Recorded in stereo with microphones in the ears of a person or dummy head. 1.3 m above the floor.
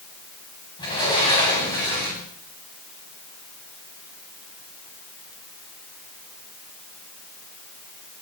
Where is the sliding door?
25° left (ahead or behind), 8.5 m.